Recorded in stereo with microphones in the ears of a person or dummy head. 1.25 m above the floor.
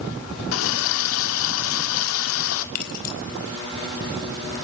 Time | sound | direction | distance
0.5 | a running tap | 75° left (ahead or behind) | 1.8 m
2.8 | keys jangling | 50° left (ahead or behind) | 4 m